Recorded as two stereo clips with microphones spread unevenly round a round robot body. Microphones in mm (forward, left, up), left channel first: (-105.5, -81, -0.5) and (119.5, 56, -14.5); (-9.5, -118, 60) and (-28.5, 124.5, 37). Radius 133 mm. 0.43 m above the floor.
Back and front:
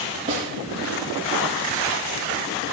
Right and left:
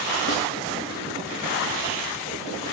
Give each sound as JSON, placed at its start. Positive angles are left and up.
{"t": 0.3, "sound": "a snare drum", "azimuth_deg": -30, "distance_m": 9.5}